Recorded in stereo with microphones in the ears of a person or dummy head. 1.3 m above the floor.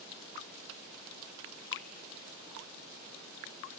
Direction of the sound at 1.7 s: 65° left (ahead or behind).